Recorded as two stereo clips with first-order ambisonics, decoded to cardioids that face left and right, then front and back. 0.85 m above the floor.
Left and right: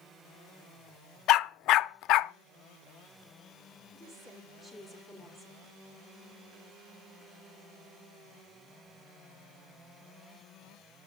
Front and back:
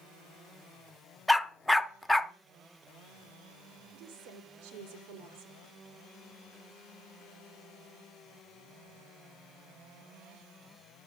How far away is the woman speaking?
About 3 m.